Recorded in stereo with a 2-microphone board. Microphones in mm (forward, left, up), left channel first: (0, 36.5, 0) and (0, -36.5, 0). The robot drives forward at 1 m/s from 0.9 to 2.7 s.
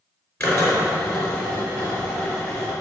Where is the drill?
35° left (ahead or behind), 3.5 m; by 2.7 s 25° left (ahead or behind), 5 m.